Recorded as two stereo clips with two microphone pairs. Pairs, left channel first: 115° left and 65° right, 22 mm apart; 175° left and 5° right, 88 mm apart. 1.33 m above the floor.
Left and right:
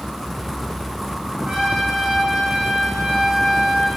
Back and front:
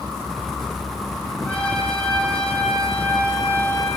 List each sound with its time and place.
1.4 s a trumpet: 110° right, 4.5 m